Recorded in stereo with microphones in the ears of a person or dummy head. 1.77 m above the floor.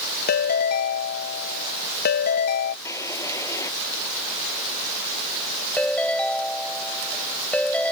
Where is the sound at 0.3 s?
55° left (ahead or behind).